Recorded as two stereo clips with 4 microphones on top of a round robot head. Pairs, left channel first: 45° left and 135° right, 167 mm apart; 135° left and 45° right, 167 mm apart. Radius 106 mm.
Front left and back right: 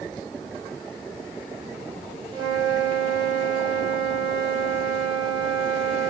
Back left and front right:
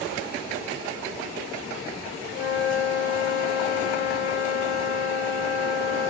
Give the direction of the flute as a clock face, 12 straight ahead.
6 o'clock.